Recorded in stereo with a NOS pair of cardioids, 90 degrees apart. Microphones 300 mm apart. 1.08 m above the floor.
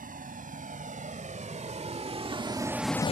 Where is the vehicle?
25° right; by 3.1 s 25° left.